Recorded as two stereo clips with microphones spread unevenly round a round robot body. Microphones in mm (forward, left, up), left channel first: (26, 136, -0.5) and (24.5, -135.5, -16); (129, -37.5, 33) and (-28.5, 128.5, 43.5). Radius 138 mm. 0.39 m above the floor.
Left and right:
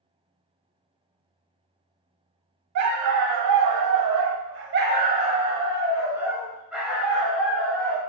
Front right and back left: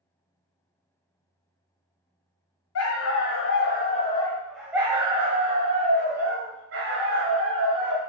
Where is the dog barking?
65° right, 1.0 m; by 8.0 s 175° left, 2.5 m.